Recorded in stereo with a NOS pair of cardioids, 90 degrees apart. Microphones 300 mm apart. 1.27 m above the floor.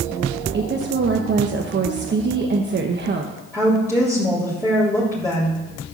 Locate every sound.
0.5 s a woman speaking: 35° right, 1.2 m
3.5 s a woman speaking: 10° left, 3.5 m